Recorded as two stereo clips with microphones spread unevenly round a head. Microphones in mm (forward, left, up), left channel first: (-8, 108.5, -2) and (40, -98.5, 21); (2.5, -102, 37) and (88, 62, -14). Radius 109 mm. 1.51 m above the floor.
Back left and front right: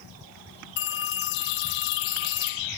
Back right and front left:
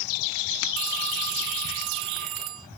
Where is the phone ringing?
80° left.